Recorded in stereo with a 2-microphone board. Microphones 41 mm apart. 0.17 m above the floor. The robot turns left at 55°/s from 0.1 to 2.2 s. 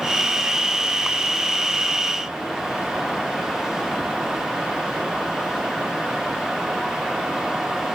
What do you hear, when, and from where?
Only background noise.